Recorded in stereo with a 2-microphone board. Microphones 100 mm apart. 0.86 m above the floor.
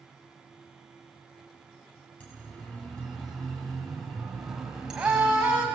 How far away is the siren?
About 5.5 m.